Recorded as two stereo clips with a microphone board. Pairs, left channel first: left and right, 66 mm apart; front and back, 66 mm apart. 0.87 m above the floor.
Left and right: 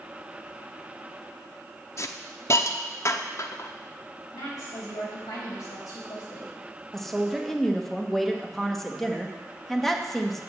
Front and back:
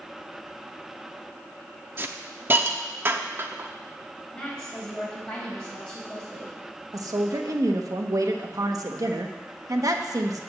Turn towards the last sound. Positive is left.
turn(degrees=175)